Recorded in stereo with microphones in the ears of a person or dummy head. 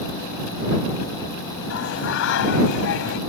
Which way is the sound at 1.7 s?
75° left (ahead or behind).